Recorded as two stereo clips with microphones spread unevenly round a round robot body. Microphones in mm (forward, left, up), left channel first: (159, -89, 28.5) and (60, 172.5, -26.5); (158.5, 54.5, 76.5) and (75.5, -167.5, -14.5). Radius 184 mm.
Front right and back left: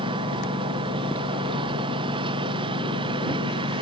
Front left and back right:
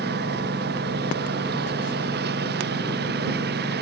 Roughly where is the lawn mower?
Behind.